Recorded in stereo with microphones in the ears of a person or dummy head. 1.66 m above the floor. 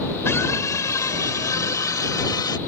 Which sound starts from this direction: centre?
A scream, at 0.2 s.